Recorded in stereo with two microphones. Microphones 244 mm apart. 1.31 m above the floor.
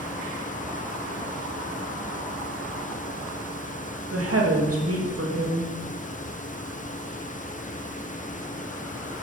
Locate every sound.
4.1 s a woman speaking: 70° right (ahead or behind), 2.5 m